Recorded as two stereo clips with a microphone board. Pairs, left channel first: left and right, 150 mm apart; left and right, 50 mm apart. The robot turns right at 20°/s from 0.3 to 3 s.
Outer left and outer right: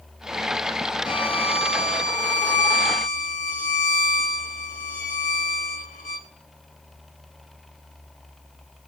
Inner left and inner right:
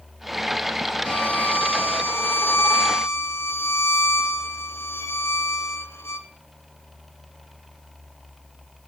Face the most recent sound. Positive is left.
turn(degrees=75)